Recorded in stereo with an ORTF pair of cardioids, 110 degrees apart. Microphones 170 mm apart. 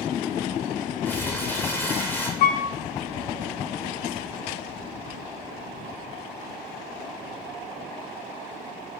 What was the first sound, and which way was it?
Crumpling, 10° left.